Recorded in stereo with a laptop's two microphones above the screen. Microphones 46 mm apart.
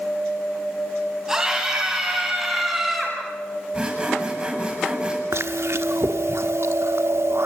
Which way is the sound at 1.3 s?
15° right (ahead or behind).